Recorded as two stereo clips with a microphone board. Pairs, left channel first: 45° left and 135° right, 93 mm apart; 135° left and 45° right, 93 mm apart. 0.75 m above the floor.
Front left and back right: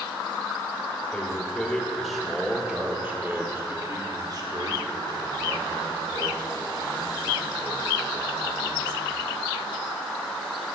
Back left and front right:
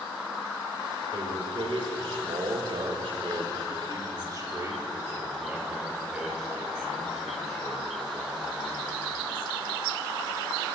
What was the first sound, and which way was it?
A man speaking, 30° right.